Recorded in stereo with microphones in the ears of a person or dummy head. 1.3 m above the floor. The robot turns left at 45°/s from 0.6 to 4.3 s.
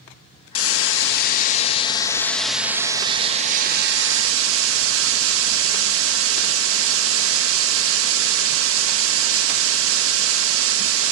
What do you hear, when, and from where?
0.6 s a hiss: 85° left, 1.9 m; by 11.1 s 80° right, 1.9 m